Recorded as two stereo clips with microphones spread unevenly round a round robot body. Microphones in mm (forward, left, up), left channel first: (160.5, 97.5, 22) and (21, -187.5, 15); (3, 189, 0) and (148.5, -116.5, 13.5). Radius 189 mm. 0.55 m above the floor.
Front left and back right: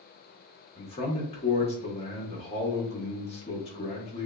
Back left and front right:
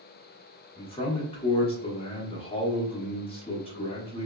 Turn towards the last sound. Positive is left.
turn(degrees=90)